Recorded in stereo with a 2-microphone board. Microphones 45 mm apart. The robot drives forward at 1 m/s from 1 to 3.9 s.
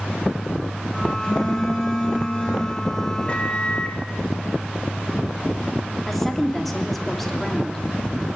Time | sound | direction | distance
1.2 | a phone buzzing | 20° left (ahead or behind) | 7 m
3.3 | a microwave | 25° left (ahead or behind) | 3 m
6.1 | a woman speaking | centre (ahead or behind) | 3 m